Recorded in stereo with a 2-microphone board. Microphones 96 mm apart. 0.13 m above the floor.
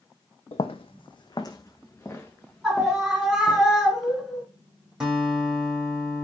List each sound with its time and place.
0.5 s footsteps: 85° left, 0.5 m; by 3.6 s 5° left (ahead or behind), 1.6 m
2.6 s a scream: 5° right (ahead or behind), 1.3 m
5.0 s a guitar: 5° right (ahead or behind), 1.9 m